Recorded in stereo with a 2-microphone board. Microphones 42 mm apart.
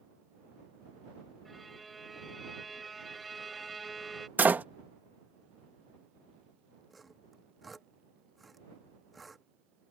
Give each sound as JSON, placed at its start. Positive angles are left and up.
{"t": 1.4, "sound": "a violin", "side_deg": 0}
{"t": 4.4, "sound": "a door slam", "side_deg": -45}
{"t": 6.9, "sound": "sawing", "side_deg": 0}